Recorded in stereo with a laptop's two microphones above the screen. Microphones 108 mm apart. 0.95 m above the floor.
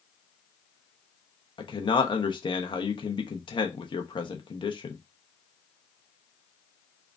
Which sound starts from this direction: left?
A man speaking, at 1.6 s.